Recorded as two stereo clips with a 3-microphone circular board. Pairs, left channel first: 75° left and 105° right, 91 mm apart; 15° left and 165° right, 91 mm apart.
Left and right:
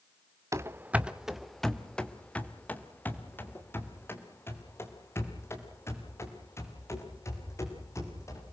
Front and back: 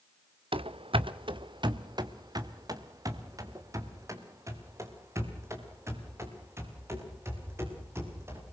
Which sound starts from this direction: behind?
Running footsteps, at 0.5 s.